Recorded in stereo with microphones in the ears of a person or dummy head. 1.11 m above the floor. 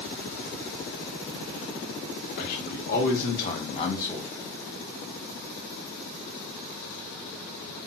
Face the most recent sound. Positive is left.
turn(degrees=5)  # may be behind; listen again after turning